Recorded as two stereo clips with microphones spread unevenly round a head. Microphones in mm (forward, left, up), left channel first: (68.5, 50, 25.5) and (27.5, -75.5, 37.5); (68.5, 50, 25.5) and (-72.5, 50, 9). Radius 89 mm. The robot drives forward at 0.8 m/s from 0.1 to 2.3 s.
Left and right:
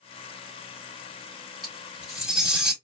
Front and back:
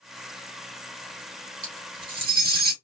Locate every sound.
1.6 s cutlery clinking: 165° left, 2.5 m